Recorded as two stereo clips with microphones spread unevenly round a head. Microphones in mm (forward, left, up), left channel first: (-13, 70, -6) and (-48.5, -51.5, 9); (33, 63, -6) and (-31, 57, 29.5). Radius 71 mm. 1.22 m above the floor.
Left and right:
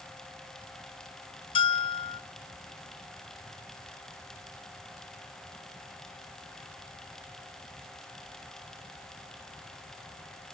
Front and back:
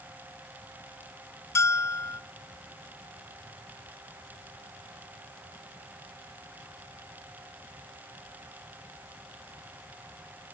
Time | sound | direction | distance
1.6 | a bell | 70° left | 0.7 m